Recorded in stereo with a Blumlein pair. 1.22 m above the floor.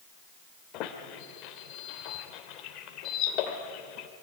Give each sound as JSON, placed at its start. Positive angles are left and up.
{"t": 0.7, "sound": "a squeak", "azimuth_deg": 40, "distance_m": 2.5}